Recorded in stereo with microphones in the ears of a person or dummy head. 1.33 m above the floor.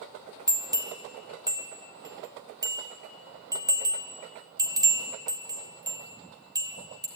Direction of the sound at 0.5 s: 15° right (ahead or behind).